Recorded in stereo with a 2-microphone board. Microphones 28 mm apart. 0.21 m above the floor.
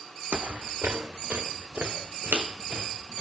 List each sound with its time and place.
0.3 s footsteps: 50° right (ahead or behind), 0.5 m; by 3.2 s 85° right, 3 m